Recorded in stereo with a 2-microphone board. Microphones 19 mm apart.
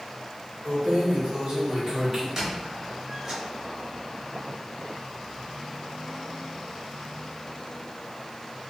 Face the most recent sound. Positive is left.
turn(degrees=-20)  # may be behind; listen again after turning